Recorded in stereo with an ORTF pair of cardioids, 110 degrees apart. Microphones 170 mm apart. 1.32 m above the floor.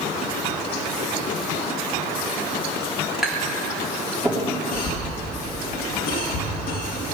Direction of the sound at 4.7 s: 60° left.